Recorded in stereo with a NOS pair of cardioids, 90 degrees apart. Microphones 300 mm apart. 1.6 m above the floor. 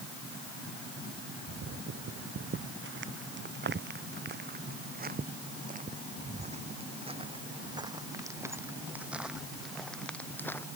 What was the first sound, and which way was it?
Footsteps, 45° right.